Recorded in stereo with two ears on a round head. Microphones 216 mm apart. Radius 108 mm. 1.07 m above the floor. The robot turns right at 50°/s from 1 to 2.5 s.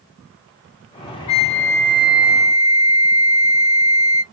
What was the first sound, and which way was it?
A flute, 95° left.